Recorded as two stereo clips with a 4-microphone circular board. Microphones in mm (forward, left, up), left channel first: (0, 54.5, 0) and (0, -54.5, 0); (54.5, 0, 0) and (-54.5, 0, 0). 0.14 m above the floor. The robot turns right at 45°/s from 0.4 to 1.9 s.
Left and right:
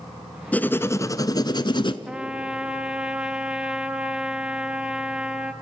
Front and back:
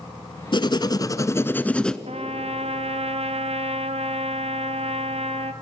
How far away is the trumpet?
About 0.9 m.